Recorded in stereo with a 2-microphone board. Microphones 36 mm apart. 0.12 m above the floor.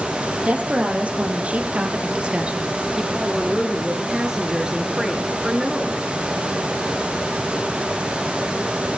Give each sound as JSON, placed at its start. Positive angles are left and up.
{"t": 0.4, "sound": "a woman speaking", "side_deg": -45, "distance_m": 4.0}
{"t": 3.1, "sound": "a woman speaking", "side_deg": -15, "distance_m": 2.0}